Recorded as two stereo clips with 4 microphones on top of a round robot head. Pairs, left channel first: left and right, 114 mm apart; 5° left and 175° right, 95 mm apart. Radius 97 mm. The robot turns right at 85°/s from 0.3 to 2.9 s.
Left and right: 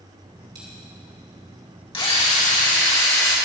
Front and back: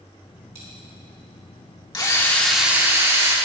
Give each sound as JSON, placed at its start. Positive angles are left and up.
{"t": 0.6, "sound": "a dropped coin", "azimuth_deg": -130, "distance_m": 3.0}
{"t": 1.9, "sound": "a drill", "azimuth_deg": 45, "distance_m": 2.0}